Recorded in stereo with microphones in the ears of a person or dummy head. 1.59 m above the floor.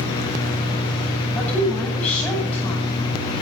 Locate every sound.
1.4 s a woman speaking: 5° left (ahead or behind), 10 m